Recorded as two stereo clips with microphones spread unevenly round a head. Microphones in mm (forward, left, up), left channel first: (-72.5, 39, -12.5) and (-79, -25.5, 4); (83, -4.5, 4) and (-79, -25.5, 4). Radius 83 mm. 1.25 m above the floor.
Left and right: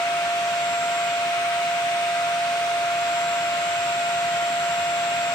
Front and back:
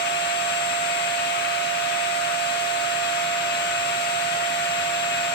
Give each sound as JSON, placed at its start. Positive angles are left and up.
{"t": 0.0, "sound": "a machine running", "azimuth_deg": 45, "distance_m": 1.5}